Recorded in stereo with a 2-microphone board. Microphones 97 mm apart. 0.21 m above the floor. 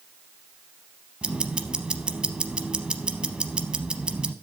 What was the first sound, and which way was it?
Ticking, 10° right (ahead or behind).